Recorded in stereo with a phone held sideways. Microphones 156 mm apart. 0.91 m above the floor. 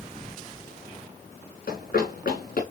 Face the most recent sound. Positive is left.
turn(degrees=75)  # may be behind; listen again after turning